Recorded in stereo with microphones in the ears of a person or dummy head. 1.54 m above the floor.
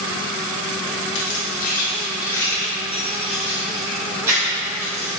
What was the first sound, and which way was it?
Keys jangling, 65° left (ahead or behind).